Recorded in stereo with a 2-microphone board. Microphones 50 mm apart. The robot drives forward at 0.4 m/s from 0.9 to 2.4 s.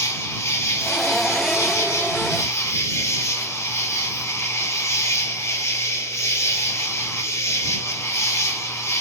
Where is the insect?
65° left (ahead or behind), 1.6 m; by 9.0 s 60° left (ahead or behind), 1.6 m.